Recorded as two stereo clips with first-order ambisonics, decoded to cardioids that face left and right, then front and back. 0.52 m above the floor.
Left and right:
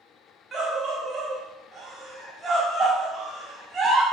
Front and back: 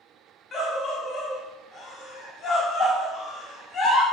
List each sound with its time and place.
0.5 s a scream: 40° right, 0.8 m